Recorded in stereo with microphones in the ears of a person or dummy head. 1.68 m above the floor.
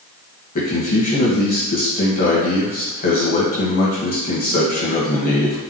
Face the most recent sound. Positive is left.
turn(degrees=45)  # may be behind; listen again after turning